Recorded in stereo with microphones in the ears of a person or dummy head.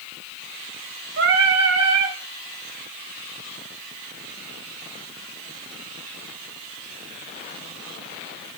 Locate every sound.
1.2 s singing: 70° right (ahead or behind), 2.5 m